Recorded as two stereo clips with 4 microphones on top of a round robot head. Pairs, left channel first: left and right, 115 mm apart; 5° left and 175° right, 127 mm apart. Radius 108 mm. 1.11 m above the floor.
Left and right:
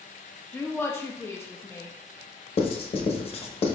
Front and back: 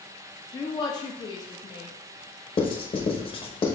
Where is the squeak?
I don't hear a squeak.